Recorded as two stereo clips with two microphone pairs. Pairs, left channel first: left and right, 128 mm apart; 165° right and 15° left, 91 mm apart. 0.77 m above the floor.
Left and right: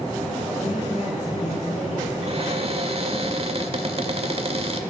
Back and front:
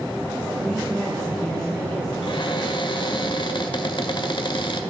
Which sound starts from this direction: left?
A woman speaking, at 0.6 s.